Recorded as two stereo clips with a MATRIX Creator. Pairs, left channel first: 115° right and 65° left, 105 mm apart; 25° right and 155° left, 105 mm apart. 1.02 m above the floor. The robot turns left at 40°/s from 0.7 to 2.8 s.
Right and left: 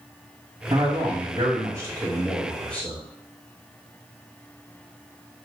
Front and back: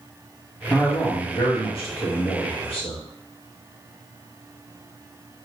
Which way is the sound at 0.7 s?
45° left.